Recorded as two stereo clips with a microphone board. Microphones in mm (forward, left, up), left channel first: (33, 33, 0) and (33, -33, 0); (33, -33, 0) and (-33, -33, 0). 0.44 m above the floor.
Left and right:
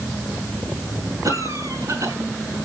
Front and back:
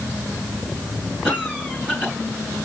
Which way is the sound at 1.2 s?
100° right.